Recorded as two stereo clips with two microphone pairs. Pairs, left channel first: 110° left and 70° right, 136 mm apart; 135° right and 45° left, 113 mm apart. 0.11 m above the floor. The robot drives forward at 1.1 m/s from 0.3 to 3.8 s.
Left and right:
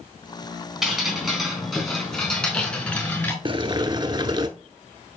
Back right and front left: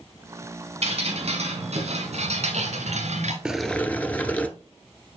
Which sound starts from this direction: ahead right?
Boiling, at 3.5 s.